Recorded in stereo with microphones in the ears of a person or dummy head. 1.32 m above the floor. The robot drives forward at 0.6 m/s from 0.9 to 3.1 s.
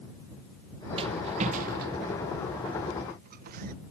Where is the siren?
No siren in this recording.